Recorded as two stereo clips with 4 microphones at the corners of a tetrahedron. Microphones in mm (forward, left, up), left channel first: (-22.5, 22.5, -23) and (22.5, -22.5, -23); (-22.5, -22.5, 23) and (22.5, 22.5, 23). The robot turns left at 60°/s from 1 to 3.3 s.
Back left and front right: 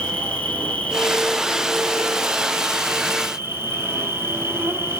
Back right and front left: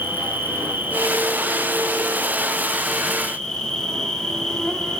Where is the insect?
80° left, 1.2 m; by 5.0 s 60° right, 1.2 m.